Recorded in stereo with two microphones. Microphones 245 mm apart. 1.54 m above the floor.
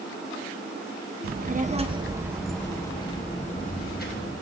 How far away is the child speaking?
About 0.9 m.